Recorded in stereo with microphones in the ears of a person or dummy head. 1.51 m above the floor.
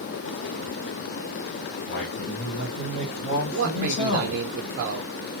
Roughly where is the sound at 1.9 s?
Left.